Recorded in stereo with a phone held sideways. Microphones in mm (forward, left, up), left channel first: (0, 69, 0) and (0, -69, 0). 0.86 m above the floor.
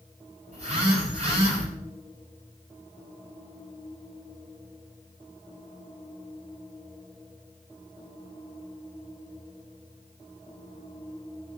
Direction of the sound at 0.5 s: 55° right (ahead or behind).